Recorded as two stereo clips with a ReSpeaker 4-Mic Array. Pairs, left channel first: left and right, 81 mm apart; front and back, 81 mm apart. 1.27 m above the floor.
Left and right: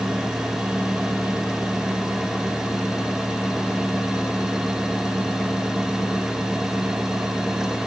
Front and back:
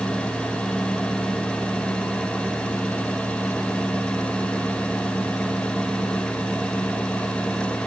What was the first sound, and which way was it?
Only background noise.